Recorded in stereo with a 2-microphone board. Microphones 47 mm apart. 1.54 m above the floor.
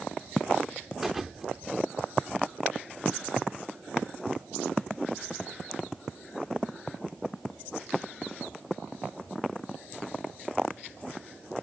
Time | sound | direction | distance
1.0 | a thud | 5° right (ahead or behind) | ?